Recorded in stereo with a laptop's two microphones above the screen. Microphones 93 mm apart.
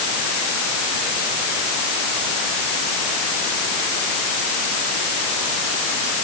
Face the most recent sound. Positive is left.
No sound to turn to.